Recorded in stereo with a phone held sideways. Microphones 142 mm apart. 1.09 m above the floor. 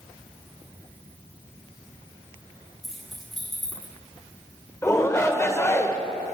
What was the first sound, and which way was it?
Keys jangling, centre (ahead or behind).